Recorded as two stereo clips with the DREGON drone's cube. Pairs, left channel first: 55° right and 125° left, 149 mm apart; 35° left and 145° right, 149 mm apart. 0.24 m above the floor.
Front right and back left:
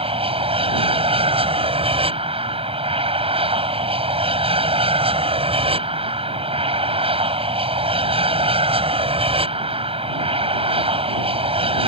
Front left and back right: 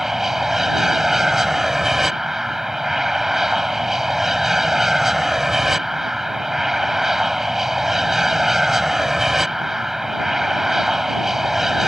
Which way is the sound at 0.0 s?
130° left.